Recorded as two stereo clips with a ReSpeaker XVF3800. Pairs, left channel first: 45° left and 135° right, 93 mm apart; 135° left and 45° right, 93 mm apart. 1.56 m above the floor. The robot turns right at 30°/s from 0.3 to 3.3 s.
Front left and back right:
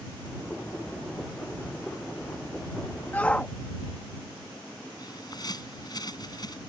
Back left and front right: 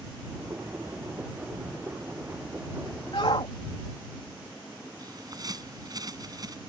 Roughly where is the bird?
Ahead.